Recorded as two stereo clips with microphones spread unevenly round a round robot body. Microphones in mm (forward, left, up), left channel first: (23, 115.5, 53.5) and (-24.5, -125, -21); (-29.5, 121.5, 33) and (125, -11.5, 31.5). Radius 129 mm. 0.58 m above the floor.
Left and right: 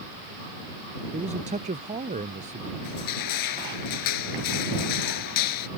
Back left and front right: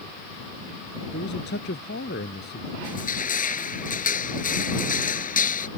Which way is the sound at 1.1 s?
170° right.